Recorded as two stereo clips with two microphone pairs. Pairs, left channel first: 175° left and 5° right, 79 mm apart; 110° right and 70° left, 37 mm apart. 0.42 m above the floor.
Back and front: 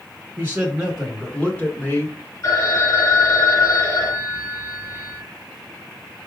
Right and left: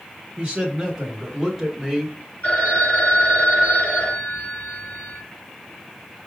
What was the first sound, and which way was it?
A man speaking, 10° left.